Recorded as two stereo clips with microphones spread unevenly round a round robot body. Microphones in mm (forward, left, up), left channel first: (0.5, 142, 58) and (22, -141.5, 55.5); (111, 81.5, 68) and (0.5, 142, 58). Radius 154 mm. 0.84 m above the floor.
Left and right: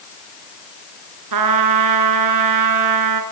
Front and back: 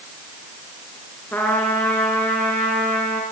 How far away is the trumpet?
About 2.5 m.